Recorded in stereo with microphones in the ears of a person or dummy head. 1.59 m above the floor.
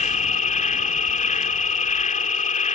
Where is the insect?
40° left (ahead or behind).